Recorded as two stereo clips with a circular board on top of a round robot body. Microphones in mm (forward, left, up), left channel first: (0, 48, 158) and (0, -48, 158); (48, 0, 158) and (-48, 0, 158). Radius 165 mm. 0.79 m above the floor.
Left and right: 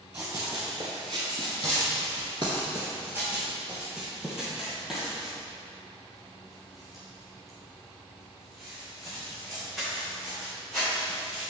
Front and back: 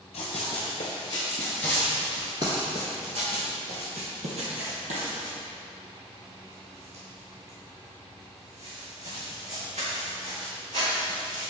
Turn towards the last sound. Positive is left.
turn(degrees=175)